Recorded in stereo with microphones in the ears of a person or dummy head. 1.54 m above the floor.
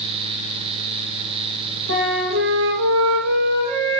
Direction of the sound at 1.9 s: 90° right.